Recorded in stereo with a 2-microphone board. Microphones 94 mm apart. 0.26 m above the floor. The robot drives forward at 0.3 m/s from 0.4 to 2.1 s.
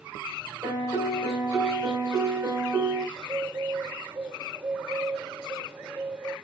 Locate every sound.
0.6 s a piano: 60° right (ahead or behind), 3 m; by 3.0 s 55° right (ahead or behind), 3 m
3.1 s a bird: 45° right (ahead or behind), 4 m